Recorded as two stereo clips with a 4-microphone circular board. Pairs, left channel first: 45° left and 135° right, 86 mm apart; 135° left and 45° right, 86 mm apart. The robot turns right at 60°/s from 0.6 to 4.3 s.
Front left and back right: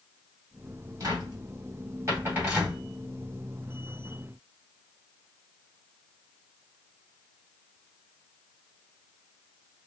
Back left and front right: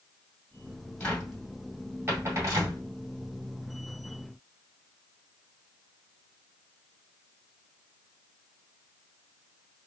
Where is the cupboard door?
155° right, 2.0 m; by 2.8 s 50° right, 2.0 m.